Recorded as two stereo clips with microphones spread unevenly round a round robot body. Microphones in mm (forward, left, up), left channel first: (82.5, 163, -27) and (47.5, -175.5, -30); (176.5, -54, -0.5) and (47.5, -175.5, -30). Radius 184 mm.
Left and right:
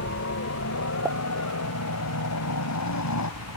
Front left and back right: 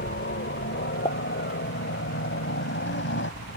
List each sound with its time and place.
0.0 s a helicopter: 40° left; by 3.6 s 45° left
1.1 s a pop: 15° right